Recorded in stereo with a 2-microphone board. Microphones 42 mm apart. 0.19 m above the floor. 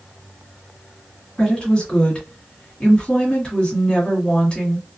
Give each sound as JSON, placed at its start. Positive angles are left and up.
{"t": 1.4, "sound": "a woman speaking", "side_deg": 25, "distance_m": 1.7}